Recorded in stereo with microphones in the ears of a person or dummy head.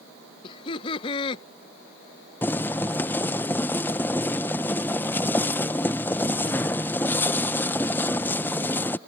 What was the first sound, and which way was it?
Laughter, 35° left (ahead or behind).